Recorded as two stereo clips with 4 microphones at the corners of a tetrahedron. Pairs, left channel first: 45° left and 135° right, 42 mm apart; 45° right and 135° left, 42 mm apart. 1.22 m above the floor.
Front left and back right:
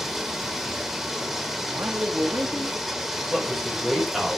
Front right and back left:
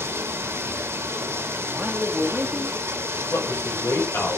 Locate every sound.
0.0 s running water: 140° left, 2 m
1.7 s a man speaking: 155° right, 2 m
3.3 s a man speaking: 50° right, 6 m